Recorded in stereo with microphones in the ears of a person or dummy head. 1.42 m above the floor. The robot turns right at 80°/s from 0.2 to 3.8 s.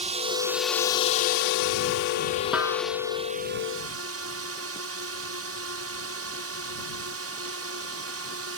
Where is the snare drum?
Centre (ahead or behind); by 2.8 s 25° right (ahead or behind).